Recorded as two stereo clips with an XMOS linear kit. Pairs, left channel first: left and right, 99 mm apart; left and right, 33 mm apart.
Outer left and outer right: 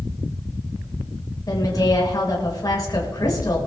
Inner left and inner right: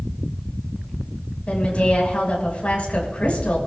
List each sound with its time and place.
1.5 s a woman speaking: 45° left (ahead or behind), 5.5 m